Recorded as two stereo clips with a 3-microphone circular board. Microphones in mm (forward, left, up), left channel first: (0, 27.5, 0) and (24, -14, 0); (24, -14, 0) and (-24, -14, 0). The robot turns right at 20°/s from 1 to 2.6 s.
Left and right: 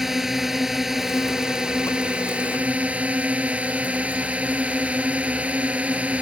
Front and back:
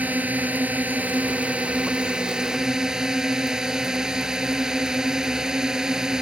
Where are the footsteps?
No footsteps in this recording.